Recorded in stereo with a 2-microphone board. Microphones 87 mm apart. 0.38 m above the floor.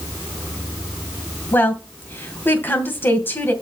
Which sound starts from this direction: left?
A woman speaking, at 1.5 s.